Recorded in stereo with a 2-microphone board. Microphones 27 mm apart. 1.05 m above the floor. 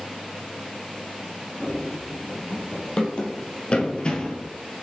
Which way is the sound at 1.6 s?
25° left (ahead or behind).